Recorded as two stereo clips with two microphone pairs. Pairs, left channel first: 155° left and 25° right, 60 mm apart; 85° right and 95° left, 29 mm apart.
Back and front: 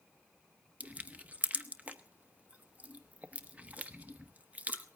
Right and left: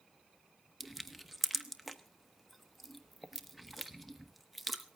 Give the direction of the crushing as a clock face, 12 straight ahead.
12 o'clock.